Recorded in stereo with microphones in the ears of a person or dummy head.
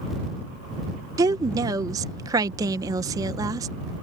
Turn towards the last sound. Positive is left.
turn(degrees=-15)  # may be behind; listen again after turning